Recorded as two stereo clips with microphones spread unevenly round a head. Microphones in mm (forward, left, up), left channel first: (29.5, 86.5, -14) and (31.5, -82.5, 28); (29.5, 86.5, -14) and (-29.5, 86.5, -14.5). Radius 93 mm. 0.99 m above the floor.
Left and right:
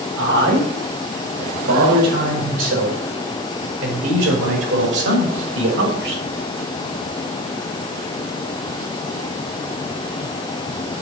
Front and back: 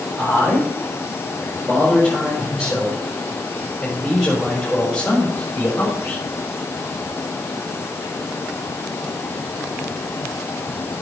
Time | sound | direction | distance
0.2 | a man speaking | 100° right | 6.5 m